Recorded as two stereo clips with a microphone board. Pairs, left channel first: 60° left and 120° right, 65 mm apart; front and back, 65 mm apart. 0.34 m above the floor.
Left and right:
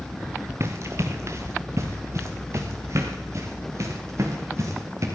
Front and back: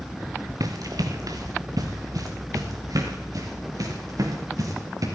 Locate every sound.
0.6 s running footsteps: 165° right, 1.7 m; by 5.1 s 160° right, 5 m